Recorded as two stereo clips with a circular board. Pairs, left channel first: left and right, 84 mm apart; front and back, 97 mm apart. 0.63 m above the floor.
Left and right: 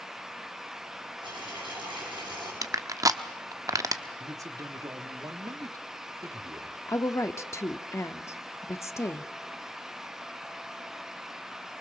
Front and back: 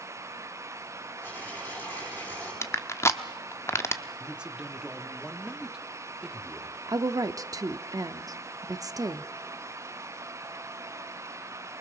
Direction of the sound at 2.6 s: 55° right.